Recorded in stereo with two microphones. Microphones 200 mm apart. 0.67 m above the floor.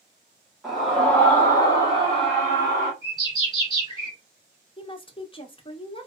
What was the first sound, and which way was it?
A scream, centre (ahead or behind).